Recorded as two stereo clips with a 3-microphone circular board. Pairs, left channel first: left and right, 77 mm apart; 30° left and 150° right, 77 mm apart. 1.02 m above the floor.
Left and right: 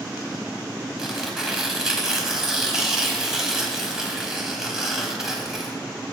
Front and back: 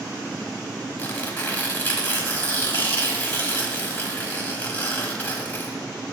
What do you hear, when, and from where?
1.0 s tearing paper: 15° right, 0.9 m